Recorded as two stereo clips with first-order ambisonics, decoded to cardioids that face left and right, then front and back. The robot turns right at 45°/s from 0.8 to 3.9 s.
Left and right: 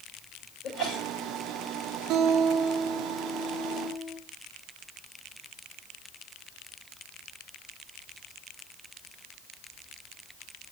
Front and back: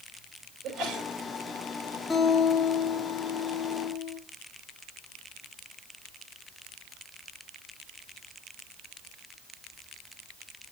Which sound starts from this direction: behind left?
A sneeze, at 0.6 s.